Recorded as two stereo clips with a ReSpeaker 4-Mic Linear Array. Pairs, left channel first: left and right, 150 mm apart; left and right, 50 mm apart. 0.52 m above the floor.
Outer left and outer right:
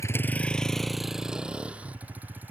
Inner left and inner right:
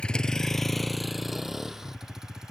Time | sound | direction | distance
0.0 | a vehicle | 20° left (ahead or behind) | ?